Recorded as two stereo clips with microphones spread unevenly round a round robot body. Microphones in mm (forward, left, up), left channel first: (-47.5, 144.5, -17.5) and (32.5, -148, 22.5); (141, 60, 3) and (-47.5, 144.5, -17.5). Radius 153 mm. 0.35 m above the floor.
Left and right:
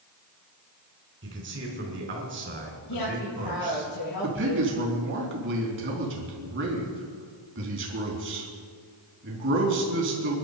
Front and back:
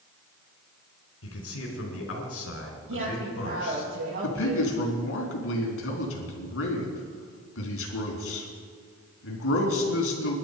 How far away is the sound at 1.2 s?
About 4 m.